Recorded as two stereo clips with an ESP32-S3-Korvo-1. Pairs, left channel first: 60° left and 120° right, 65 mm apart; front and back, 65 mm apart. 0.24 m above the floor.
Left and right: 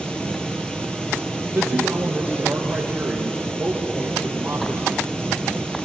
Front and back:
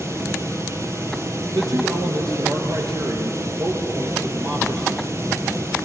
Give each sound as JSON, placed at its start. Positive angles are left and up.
{"t": 0.0, "sound": "running water", "azimuth_deg": 140, "distance_m": 2.0}
{"t": 1.5, "sound": "a man speaking", "azimuth_deg": 175, "distance_m": 4.0}